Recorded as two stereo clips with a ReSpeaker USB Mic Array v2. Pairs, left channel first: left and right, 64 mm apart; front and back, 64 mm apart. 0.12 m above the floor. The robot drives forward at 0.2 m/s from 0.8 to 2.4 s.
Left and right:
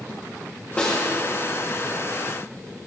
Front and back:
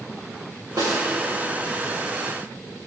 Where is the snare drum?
160° left, 5.5 m; by 1.0 s 165° left, 5.5 m.